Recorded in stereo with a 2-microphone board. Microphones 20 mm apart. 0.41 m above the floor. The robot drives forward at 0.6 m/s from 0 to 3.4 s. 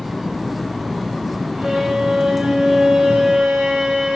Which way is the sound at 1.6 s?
30° right (ahead or behind).